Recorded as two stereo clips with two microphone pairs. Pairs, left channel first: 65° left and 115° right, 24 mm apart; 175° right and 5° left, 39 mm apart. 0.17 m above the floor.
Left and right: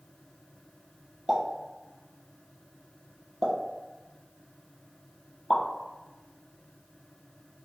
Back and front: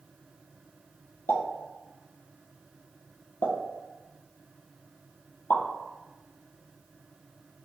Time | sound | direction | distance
1.3 | a pop | 175° left | 0.8 m